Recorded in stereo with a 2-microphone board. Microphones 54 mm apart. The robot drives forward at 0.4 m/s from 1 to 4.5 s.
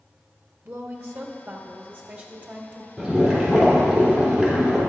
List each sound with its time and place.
0.7 s a woman speaking: 50° right (ahead or behind), 1.2 m; by 2.9 s 30° right (ahead or behind), 1.8 m
3.0 s boiling: 15° right (ahead or behind), 3 m; by 4.8 s 20° right (ahead or behind), 2.5 m